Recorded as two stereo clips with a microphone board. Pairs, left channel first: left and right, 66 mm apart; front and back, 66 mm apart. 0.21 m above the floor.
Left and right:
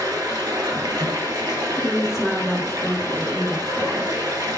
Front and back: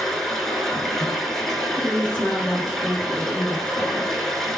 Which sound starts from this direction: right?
Running water, at 0.0 s.